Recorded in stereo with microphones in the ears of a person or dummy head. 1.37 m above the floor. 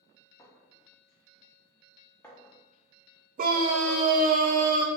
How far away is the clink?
About 0.6 m.